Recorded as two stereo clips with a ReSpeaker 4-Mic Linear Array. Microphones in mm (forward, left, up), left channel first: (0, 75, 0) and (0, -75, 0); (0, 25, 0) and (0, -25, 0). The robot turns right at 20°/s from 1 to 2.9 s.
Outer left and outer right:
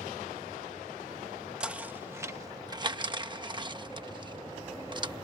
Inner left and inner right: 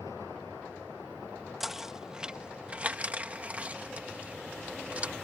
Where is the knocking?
5° right (ahead or behind); by 5.2 s 30° right (ahead or behind).